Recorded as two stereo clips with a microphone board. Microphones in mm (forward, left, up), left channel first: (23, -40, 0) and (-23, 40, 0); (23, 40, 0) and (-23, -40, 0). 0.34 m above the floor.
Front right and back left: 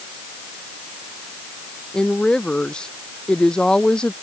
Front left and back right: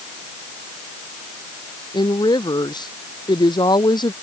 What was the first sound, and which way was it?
A woman speaking, 20° left.